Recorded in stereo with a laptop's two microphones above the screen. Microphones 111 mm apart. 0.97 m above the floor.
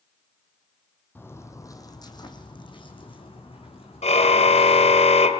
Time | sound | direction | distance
1.1 | footsteps | 20° left (ahead or behind) | 2 m
4.0 | a car horn | 75° left (ahead or behind) | 2 m